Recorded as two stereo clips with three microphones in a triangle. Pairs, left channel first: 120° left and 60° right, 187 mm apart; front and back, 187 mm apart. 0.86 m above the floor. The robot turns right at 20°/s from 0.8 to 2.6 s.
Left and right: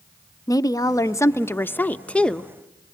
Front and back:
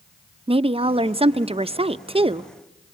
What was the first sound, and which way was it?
A woman speaking, 170° left.